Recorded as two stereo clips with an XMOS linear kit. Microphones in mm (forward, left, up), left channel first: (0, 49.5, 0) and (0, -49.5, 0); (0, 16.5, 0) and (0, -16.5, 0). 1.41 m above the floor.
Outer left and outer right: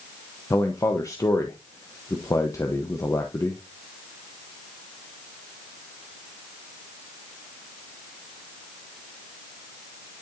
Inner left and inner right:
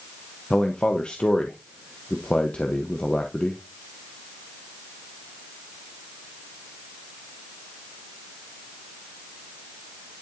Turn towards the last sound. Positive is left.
turn(degrees=35)  # may be behind; listen again after turning